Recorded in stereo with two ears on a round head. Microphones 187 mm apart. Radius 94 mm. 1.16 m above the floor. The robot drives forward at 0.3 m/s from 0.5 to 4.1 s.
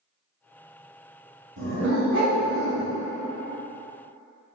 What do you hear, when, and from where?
1.6 s a dog barking: 60° right (ahead or behind), 1.6 m